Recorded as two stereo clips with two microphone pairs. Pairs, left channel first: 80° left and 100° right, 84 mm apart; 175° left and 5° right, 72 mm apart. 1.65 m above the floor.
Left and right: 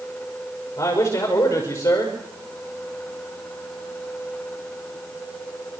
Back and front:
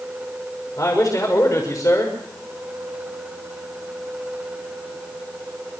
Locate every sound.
0.8 s a man speaking: 135° left, 6 m